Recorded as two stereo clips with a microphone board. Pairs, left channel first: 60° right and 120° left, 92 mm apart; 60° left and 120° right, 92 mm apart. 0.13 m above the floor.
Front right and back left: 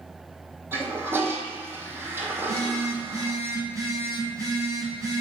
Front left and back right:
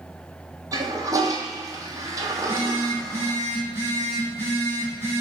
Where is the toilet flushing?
175° right, 0.8 m.